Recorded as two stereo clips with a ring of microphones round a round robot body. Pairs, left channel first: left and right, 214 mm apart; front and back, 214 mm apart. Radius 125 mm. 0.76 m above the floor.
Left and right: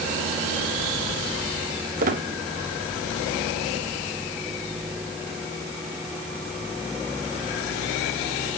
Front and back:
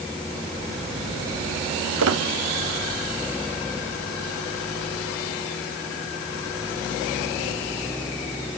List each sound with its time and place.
2.0 s a squeak: 150° right, 0.7 m